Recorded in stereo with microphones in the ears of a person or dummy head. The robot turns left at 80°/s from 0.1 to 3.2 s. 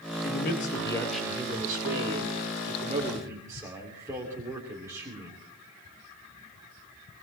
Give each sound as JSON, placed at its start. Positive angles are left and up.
{"t": 0.2, "sound": "a man speaking", "azimuth_deg": 70, "distance_m": 3.0}